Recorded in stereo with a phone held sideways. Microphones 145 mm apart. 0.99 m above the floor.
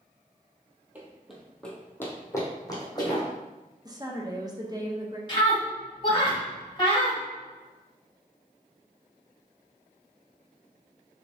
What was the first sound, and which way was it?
Running footsteps, 10° right (ahead or behind).